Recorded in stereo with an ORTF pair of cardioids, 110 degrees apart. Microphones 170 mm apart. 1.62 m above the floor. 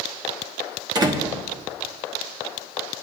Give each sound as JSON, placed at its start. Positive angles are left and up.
{"t": 0.9, "sound": "a door slam", "azimuth_deg": -25, "distance_m": 1.1}